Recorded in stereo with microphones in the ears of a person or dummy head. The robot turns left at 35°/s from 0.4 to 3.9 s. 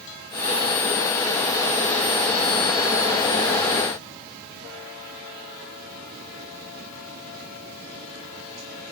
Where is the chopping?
I don't hear chopping.